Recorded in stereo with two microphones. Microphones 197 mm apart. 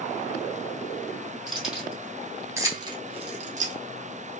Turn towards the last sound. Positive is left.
turn(degrees=-40)  # may be behind; listen again after turning